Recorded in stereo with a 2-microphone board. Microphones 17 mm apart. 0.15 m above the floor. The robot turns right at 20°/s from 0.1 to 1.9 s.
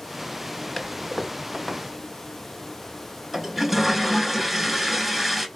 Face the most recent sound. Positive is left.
turn(degrees=-10)  # may be behind; listen again after turning